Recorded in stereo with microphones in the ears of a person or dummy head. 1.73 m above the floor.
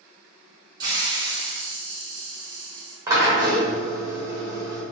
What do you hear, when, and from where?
0.8 s a hiss: 20° right (ahead or behind), 1.1 m
3.1 s a drill: 20° right (ahead or behind), 1.1 m